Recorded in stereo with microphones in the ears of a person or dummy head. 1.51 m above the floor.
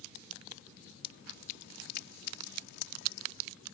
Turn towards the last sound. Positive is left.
turn(degrees=60)  # may be behind; listen again after turning